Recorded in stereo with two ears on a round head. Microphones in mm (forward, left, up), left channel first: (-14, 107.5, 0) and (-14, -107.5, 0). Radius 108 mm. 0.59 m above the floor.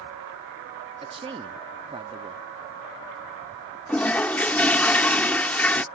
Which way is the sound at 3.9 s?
5° left (ahead or behind).